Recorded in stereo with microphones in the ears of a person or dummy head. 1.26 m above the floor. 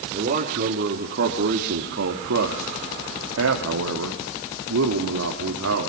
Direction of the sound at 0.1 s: 40° right (ahead or behind).